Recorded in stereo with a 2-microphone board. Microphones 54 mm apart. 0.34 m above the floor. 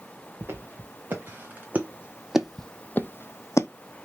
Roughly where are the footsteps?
Right.